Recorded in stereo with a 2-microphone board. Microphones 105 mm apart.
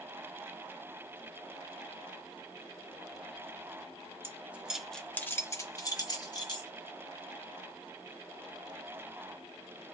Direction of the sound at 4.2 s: 20° right (ahead or behind).